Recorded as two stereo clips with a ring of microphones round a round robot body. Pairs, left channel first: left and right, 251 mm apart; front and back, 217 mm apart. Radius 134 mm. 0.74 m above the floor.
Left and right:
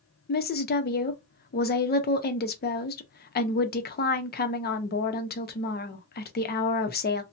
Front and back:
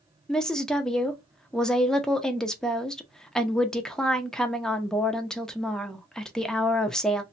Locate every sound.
0.3 s a woman speaking: 85° left, 0.7 m